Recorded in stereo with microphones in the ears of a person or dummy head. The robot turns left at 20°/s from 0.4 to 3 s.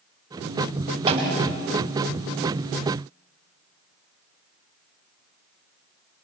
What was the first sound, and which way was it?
A snare drum, 30° right (ahead or behind).